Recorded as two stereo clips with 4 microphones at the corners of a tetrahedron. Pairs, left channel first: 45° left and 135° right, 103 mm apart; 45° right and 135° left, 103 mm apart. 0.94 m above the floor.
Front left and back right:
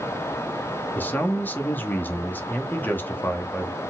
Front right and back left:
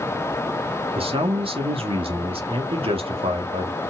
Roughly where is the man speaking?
Behind left.